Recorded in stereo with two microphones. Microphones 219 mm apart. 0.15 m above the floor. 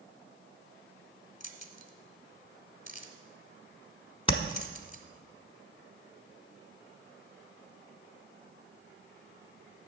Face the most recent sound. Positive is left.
turn(degrees=25)  # may be behind; listen again after turning